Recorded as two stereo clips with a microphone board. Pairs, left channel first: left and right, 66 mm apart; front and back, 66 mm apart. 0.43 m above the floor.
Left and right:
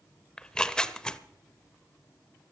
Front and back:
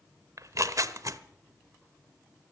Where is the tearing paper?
165° left, 0.7 m.